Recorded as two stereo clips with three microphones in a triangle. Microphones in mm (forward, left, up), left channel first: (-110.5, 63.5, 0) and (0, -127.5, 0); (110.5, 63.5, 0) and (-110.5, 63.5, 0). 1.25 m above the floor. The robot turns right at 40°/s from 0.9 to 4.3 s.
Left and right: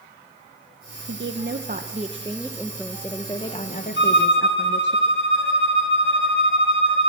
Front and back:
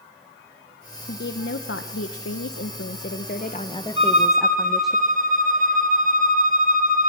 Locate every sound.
1.1 s a woman speaking: 40° right, 0.7 m; by 5.0 s 90° left, 0.7 m
4.0 s a violin: 120° left, 1.8 m; by 7.1 s 135° left, 1.8 m